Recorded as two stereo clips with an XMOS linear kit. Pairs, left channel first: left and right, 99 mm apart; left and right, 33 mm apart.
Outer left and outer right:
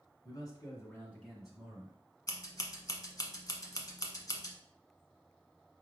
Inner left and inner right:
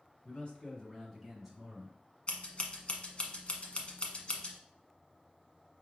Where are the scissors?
40° left (ahead or behind), 0.9 m.